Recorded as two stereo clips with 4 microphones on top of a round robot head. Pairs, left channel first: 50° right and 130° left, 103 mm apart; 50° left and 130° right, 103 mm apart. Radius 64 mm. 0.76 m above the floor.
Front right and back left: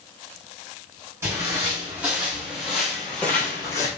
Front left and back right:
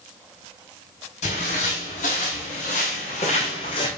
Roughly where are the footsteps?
Ahead left.